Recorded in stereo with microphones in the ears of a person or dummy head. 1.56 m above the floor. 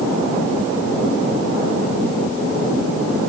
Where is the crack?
I don't hear a crack.